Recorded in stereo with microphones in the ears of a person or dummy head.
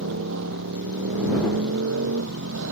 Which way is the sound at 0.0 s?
70° right (ahead or behind).